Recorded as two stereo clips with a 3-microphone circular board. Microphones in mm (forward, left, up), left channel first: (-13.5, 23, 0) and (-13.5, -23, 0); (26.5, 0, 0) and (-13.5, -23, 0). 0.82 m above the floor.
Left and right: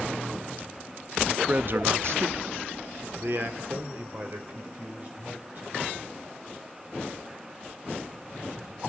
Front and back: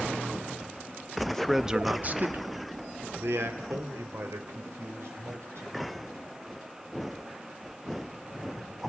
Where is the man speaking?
40° right, 0.8 m; by 5.9 s 140° right, 4.5 m.